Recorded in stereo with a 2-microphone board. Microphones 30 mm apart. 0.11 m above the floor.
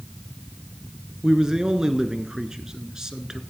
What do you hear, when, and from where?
1.2 s a man speaking: 20° right (ahead or behind), 1.1 m